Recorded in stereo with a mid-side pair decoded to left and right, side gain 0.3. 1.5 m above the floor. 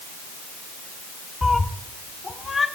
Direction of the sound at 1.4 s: 25° left.